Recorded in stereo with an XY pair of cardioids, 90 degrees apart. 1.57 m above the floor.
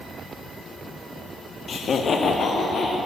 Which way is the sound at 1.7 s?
55° left.